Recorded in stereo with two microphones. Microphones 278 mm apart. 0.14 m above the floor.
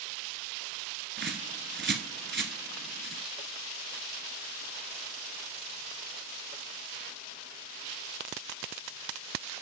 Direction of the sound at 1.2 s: 40° right (ahead or behind).